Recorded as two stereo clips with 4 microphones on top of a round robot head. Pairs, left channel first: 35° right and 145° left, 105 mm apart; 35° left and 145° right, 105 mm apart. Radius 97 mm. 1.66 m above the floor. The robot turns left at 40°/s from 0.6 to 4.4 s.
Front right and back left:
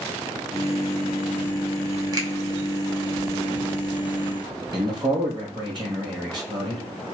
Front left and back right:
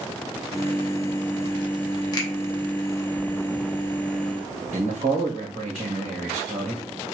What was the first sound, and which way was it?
A finger snap, 90° left.